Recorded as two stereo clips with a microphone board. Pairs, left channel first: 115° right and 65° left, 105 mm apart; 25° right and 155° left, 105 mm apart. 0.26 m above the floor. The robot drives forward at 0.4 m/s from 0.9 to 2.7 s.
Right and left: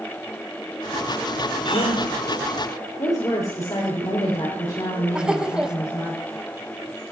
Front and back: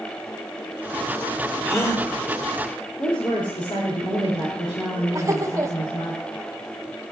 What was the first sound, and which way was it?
A gasp, 85° right.